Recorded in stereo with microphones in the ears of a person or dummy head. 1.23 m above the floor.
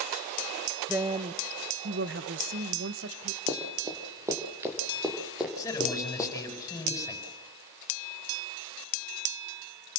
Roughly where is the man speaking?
Centre.